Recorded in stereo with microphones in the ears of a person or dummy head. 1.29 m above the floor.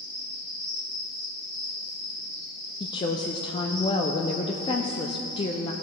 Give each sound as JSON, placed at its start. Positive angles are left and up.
{"t": 0.0, "sound": "an insect", "side_deg": 5, "distance_m": 3.5}
{"t": 2.8, "sound": "a woman speaking", "side_deg": 25, "distance_m": 0.5}